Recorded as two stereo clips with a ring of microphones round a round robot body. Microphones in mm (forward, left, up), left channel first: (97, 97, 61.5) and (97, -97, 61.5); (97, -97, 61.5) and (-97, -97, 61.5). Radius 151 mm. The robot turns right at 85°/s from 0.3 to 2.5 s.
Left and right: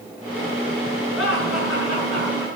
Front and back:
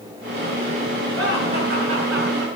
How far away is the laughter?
About 8.5 m.